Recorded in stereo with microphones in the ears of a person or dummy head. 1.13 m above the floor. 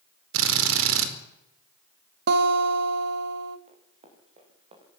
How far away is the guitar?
About 1.5 m.